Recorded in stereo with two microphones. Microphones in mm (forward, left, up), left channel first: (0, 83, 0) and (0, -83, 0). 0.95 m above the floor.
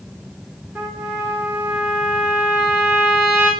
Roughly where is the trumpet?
Centre.